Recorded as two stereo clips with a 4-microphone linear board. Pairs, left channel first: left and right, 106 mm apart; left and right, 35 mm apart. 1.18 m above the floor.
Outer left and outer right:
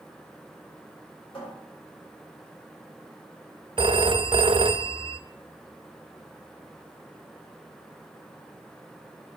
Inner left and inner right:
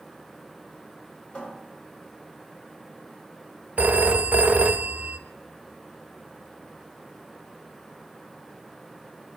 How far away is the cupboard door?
About 6.5 m.